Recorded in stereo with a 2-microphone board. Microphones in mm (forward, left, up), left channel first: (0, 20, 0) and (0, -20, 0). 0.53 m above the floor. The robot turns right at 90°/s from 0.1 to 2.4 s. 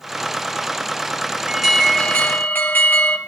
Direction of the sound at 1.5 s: 20° right.